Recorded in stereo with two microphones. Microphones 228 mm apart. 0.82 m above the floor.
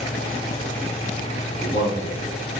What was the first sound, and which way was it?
A man speaking, 50° left (ahead or behind).